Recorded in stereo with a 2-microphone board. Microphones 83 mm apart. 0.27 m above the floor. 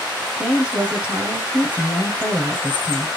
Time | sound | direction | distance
0.4 | a woman speaking | 15° right (ahead or behind) | 1.1 m